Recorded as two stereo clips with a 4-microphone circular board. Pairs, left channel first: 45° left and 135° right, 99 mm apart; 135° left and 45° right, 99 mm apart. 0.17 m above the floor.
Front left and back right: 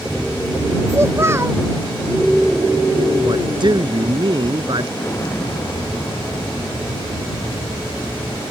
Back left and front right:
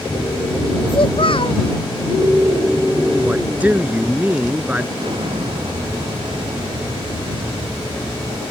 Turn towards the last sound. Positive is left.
turn(degrees=-15)